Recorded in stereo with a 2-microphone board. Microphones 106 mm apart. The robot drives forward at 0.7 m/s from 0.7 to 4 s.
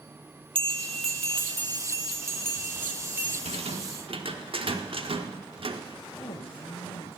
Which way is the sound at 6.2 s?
70° left (ahead or behind).